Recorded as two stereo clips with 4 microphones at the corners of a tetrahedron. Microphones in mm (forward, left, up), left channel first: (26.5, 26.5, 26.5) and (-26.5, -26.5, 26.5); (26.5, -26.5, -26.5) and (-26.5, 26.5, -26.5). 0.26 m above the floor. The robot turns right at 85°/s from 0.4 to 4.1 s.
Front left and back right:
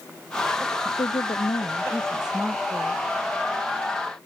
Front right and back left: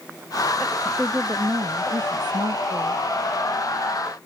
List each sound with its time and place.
0.8 s a woman speaking: 25° left; by 3.0 s 150° right